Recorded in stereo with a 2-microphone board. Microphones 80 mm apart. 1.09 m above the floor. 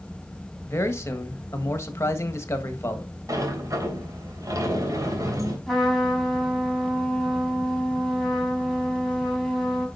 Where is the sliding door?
45° right (ahead or behind), 3 m.